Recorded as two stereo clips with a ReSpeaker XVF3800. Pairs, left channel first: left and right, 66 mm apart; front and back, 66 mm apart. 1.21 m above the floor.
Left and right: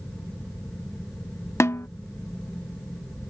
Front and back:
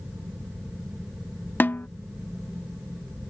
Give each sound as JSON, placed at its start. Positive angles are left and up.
{"t": 1.6, "sound": "a snare drum", "azimuth_deg": 50}